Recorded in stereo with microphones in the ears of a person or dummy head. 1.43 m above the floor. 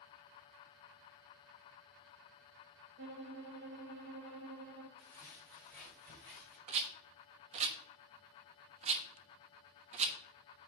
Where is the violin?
50° right (ahead or behind), 0.9 m.